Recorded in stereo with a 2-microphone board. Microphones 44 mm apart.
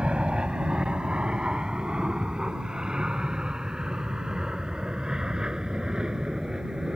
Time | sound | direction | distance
0.0 | an aircraft | 25° right (ahead or behind) | ?